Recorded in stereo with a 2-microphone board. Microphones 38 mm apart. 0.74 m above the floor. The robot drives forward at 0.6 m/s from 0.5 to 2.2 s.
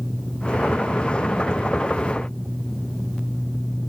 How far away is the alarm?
I don't hear an alarm.